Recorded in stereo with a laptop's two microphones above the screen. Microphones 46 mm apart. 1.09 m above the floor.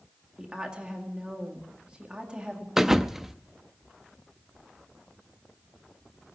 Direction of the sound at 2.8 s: 10° right (ahead or behind).